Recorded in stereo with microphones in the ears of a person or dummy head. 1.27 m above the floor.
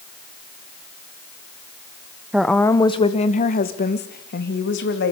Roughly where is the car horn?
No car horn in this recording.